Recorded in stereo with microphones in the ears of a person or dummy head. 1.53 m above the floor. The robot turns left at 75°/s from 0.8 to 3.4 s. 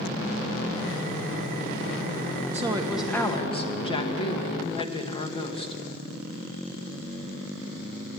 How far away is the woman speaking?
About 1.6 m.